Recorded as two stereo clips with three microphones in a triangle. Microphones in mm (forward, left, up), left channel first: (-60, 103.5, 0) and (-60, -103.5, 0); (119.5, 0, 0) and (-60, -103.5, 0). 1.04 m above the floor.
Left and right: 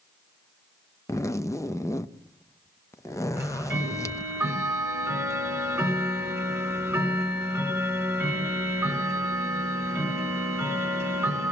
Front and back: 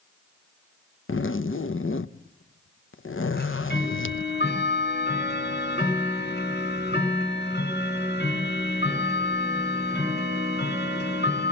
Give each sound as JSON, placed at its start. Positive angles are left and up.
{"t": 1.1, "sound": "a zipper", "azimuth_deg": 15, "distance_m": 0.6}
{"t": 3.4, "sound": "ticking", "azimuth_deg": -10, "distance_m": 5.0}